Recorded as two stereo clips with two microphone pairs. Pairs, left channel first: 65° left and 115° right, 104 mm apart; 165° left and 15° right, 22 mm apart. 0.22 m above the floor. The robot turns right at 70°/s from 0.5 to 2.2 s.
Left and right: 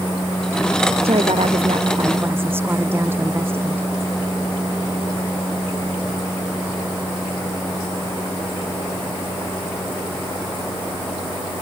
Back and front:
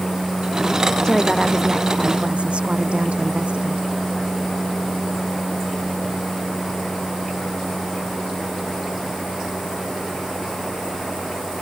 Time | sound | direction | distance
1.0 | a woman speaking | 130° right | ?